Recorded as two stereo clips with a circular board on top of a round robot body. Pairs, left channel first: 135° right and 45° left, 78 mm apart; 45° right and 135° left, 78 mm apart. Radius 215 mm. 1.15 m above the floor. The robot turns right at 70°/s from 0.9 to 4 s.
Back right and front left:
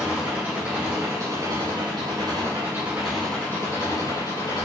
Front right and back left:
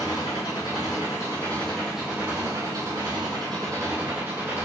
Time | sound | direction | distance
0.0 | an engine running | 20° right | 7.5 m